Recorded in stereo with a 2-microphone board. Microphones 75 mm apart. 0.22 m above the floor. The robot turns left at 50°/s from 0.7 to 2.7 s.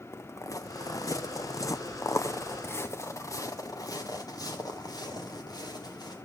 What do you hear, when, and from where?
0.1 s footsteps: 40° left (ahead or behind), 1.0 m; by 6.2 s 65° left (ahead or behind), 2.5 m